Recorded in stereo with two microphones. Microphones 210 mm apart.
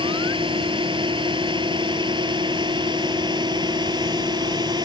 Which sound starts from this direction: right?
A drone, at 0.0 s.